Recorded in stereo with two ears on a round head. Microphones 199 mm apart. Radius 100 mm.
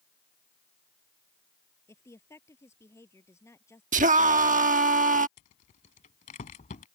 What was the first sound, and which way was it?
A woman speaking, 15° left (ahead or behind).